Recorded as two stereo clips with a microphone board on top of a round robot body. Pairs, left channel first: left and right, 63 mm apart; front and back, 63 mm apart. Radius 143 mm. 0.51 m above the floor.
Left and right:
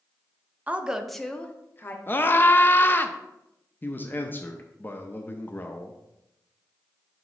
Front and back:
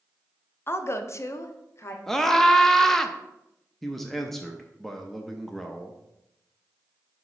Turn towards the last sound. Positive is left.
turn(degrees=85)